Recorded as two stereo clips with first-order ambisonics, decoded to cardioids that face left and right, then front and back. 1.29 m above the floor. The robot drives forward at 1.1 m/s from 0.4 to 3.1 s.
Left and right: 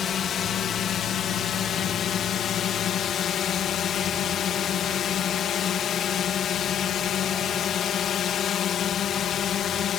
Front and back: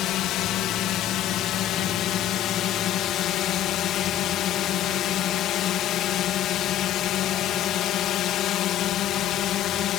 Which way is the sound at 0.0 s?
35° left.